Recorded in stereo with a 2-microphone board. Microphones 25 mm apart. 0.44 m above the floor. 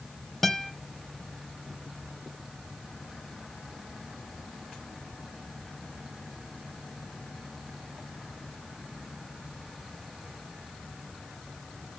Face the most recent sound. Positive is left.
turn(degrees=10)  # may be behind; listen again after turning